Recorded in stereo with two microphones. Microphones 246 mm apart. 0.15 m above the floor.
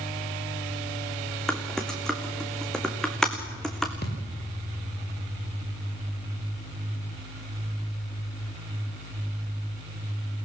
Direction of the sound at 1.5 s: 5° left (ahead or behind).